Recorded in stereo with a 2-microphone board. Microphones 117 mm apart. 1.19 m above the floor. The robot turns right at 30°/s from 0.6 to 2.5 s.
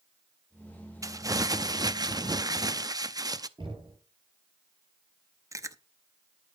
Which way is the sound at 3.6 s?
45° right (ahead or behind).